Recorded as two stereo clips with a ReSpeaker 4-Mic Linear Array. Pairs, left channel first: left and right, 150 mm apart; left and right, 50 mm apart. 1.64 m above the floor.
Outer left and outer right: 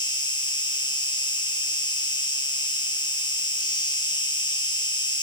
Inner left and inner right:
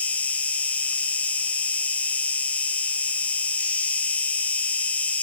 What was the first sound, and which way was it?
An insect, 30° left (ahead or behind).